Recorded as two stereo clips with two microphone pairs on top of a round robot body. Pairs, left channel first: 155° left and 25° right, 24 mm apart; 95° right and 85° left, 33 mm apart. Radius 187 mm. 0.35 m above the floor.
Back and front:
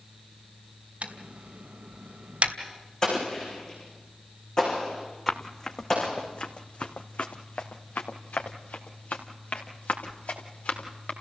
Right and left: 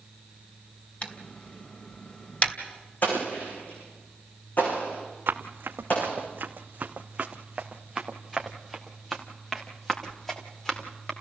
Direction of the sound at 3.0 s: 135° right.